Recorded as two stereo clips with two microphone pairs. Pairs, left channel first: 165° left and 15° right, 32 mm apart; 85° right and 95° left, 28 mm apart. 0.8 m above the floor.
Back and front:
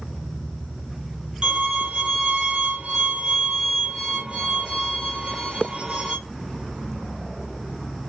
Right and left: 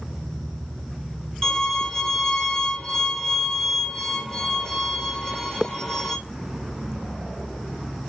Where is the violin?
40° right, 1.1 m.